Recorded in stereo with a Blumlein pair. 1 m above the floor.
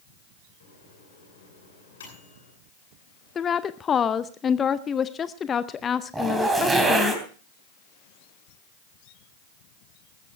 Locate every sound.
0.6 s a microwave: 65° left, 8.5 m
3.4 s a woman speaking: 20° left, 0.6 m
6.1 s a zipper: 10° right, 3.5 m